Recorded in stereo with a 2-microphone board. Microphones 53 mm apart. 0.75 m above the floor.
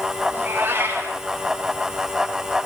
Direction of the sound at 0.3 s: 40° right (ahead or behind).